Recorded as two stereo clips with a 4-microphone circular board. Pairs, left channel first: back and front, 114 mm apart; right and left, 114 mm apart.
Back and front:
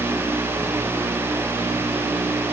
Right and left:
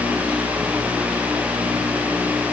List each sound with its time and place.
Only background noise.